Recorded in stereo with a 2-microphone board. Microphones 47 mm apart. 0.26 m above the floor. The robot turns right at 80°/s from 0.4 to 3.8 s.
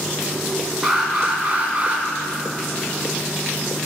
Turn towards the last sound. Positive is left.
turn(degrees=55)